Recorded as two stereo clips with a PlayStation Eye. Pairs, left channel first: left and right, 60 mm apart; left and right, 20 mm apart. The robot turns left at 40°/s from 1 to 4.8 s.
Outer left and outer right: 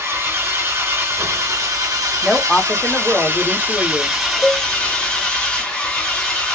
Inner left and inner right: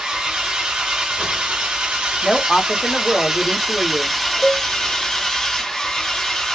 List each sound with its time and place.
0.0 s an engine running: 50° right, 1.8 m; by 6.5 s 160° left, 1.8 m
2.2 s a woman speaking: straight behind, 0.9 m; by 4.2 s 105° left, 0.9 m
4.4 s a cowbell: 15° left (ahead or behind), 0.6 m; by 4.7 s 20° left (ahead or behind), 0.6 m